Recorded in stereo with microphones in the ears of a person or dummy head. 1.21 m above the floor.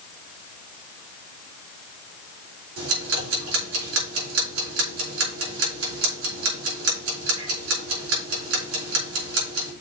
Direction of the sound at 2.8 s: 85° right.